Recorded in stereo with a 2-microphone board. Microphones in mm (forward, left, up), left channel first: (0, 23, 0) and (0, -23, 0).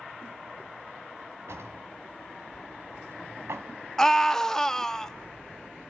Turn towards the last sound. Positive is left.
turn(degrees=10)  # may be behind; listen again after turning